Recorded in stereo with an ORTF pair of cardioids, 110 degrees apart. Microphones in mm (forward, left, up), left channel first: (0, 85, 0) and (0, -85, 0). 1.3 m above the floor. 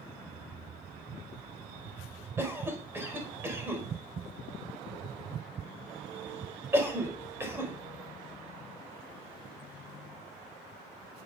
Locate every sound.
2.4 s a cough: 15° right, 5 m